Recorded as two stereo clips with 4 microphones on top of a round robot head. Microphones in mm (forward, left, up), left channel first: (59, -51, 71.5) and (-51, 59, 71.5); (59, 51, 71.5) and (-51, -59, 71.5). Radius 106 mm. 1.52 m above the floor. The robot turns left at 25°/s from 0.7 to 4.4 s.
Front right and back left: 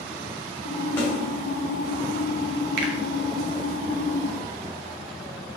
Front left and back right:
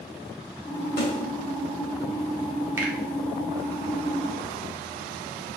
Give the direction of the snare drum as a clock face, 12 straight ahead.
11 o'clock.